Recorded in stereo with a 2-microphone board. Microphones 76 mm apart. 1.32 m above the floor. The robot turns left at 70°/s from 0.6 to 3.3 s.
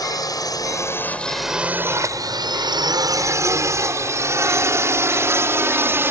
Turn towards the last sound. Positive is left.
turn(degrees=-30)  # may be behind; listen again after turning